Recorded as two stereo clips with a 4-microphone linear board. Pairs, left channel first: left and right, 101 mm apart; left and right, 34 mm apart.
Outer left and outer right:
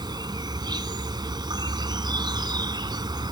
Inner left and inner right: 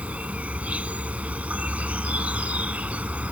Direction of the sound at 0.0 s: 45° right (ahead or behind).